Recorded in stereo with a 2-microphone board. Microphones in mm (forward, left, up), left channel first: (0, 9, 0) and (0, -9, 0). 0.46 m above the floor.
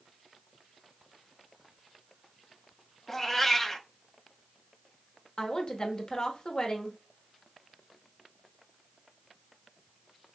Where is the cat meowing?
15° left (ahead or behind), 0.6 m.